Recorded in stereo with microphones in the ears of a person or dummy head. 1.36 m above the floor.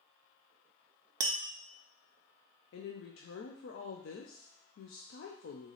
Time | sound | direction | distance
1.2 | tapping | 20° right (ahead or behind) | 0.5 m
2.7 | a woman speaking | 65° left (ahead or behind) | 0.6 m